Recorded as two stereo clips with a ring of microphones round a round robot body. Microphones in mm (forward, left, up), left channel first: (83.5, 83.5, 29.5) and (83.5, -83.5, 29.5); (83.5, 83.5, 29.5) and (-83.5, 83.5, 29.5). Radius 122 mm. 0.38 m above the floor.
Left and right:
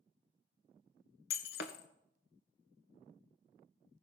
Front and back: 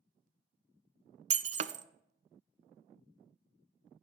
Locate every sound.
1.3 s breaking glass: 135° left, 0.5 m